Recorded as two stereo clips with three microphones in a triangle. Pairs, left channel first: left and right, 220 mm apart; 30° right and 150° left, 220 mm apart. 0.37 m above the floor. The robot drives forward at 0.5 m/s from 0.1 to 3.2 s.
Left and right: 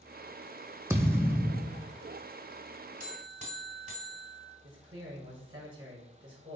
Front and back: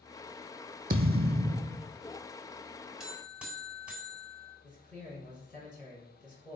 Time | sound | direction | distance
0.9 | a thud | 165° right | 0.8 m
3.0 | a buzzer | 125° right | 1.9 m
4.6 | a man speaking | 155° right | 4.5 m